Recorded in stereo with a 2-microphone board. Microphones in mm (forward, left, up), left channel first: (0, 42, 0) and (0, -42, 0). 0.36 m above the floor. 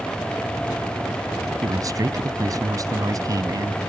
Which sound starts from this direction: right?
A man speaking, at 1.6 s.